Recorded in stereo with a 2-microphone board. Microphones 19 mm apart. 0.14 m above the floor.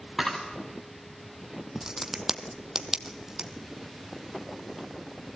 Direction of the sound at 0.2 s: 10° left (ahead or behind).